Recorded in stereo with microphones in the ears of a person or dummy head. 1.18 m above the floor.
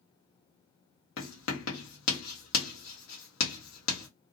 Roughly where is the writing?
Left.